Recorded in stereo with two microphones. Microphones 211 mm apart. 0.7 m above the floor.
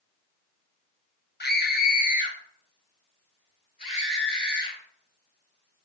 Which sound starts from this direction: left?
A scream, at 1.4 s.